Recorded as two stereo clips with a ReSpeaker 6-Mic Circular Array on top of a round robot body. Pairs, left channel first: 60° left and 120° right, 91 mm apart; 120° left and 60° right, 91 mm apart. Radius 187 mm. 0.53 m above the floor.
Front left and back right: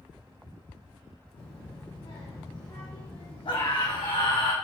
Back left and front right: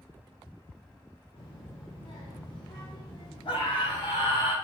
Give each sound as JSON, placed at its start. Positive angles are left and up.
{"t": 1.4, "sound": "a child speaking", "azimuth_deg": 90, "distance_m": 2.5}
{"t": 3.5, "sound": "a scream", "azimuth_deg": 85, "distance_m": 4.0}